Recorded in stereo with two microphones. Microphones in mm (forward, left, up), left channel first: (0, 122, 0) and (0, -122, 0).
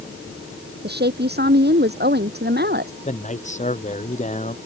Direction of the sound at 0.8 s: 40° right (ahead or behind).